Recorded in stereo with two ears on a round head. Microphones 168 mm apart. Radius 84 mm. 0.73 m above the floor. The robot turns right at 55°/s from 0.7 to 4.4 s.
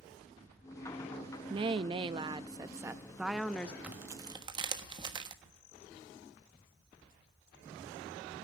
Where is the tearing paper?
5° right (ahead or behind), 1.4 m; by 5.3 s 25° right (ahead or behind), 1.4 m.